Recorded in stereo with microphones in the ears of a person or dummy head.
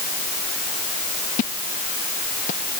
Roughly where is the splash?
Left.